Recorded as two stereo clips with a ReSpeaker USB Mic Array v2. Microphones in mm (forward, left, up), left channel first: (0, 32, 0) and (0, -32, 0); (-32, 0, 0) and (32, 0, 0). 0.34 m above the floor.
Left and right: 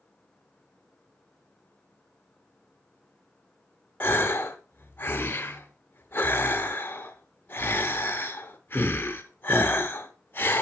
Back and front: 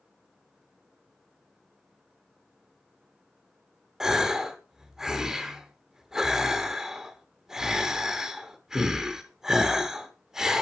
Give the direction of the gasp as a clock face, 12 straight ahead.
9 o'clock.